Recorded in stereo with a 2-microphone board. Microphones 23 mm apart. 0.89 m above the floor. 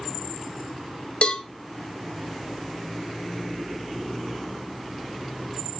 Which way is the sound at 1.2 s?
50° left (ahead or behind).